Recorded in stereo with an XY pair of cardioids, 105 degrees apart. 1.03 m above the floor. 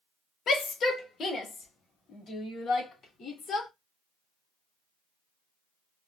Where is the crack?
I don't hear a crack.